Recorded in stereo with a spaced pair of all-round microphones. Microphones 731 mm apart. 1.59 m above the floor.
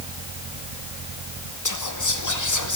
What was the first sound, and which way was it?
Whispering, 25° left (ahead or behind).